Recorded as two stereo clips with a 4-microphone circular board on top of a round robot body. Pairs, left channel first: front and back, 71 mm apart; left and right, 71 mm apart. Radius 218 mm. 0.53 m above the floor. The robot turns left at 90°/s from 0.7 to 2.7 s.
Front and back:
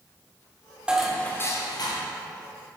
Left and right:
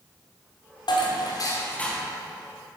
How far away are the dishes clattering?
About 1.5 m.